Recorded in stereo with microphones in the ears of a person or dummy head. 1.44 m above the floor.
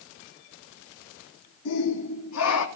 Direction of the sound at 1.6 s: 70° left (ahead or behind).